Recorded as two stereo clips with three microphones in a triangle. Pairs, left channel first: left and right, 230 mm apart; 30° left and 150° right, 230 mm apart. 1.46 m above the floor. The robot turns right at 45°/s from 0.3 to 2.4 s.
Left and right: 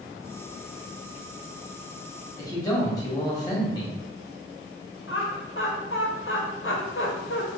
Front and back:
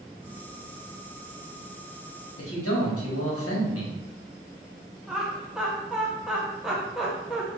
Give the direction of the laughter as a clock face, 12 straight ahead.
8 o'clock.